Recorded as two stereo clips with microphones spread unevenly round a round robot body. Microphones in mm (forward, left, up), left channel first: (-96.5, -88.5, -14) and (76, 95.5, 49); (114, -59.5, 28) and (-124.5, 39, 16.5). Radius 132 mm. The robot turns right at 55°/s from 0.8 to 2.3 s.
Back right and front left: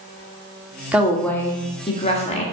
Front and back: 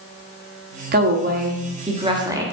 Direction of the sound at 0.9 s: 145° left.